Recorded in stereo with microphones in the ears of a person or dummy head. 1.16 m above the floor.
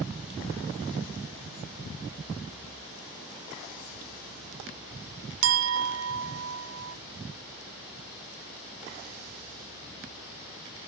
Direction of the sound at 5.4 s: 85° right.